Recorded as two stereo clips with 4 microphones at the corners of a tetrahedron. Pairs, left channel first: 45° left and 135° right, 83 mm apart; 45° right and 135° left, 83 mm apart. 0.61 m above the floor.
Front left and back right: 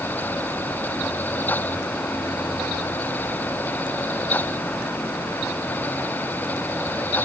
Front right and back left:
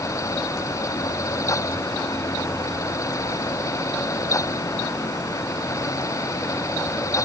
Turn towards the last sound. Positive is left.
No sound to turn to.